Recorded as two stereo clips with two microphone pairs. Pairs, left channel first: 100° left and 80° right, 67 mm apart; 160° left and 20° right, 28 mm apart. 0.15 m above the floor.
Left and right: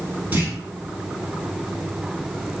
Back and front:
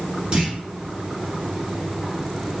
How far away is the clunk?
About 1.4 m.